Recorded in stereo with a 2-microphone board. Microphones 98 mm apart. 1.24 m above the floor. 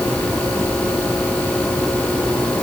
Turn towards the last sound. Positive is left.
No sound to turn to.